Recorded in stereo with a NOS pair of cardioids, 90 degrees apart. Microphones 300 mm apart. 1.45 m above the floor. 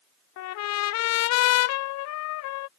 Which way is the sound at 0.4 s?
70° left.